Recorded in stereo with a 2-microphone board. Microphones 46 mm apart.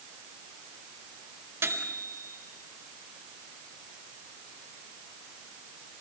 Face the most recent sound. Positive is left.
turn(degrees=-70)  # may be behind; listen again after turning